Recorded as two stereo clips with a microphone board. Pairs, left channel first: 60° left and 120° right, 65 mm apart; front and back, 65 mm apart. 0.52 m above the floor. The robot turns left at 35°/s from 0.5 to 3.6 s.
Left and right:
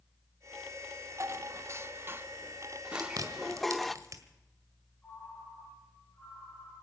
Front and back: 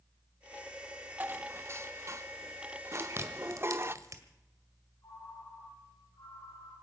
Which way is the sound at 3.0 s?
125° right.